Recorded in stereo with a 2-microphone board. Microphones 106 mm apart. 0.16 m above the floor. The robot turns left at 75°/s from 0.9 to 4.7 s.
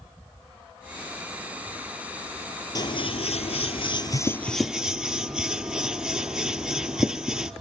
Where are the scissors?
40° left (ahead or behind), 0.7 m; by 7.5 s 5° right (ahead or behind), 0.7 m.